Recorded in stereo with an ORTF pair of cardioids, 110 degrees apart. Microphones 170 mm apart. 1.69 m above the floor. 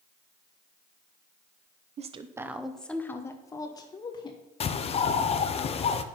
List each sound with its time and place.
2.0 s a woman speaking: 45° right, 0.7 m; by 4.4 s 25° left, 2.5 m
4.6 s a bird: 35° left, 0.8 m